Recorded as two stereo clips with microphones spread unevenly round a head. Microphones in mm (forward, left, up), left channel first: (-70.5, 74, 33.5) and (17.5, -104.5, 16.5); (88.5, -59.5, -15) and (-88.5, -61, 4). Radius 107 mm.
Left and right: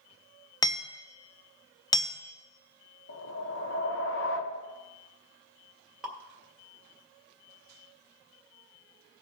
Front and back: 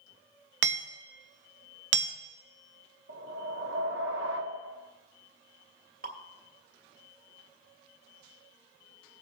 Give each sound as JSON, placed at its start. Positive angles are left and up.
{"t": 0.6, "sound": "hammering", "azimuth_deg": -170, "distance_m": 0.9}
{"t": 3.1, "sound": "a whoosh", "azimuth_deg": 140, "distance_m": 1.0}
{"t": 6.0, "sound": "dripping", "azimuth_deg": -150, "distance_m": 1.9}